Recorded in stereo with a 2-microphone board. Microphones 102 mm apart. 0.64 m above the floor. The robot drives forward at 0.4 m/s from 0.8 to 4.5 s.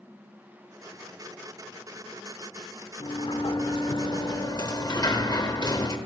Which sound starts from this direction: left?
A sliding door, at 3.0 s.